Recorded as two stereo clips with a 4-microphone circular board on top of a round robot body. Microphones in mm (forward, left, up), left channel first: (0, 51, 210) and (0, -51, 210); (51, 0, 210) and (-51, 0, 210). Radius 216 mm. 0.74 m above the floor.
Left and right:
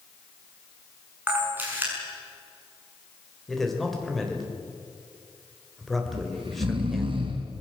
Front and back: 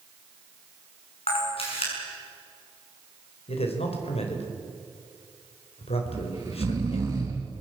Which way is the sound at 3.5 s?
Straight ahead.